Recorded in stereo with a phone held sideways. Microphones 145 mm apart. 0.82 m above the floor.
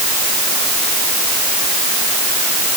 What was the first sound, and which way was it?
Only background noise.